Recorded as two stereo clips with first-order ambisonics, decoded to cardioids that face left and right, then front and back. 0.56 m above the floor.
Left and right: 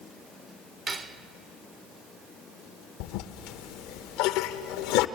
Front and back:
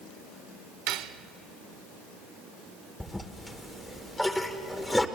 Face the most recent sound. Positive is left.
turn(degrees=85)